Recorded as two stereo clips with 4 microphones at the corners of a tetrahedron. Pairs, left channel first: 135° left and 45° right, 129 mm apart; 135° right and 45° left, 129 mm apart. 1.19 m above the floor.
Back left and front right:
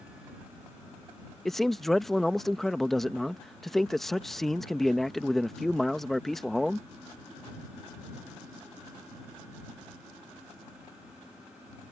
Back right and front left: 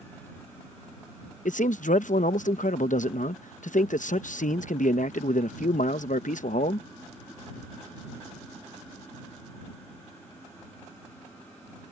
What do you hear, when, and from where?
1.4 s a man speaking: 135° right